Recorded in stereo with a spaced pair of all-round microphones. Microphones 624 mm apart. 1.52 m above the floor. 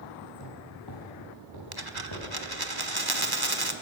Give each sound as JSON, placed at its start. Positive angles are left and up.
{"t": 0.3, "sound": "footsteps", "side_deg": 40, "distance_m": 8.5}
{"t": 1.7, "sound": "a dropped coin", "side_deg": -35, "distance_m": 1.4}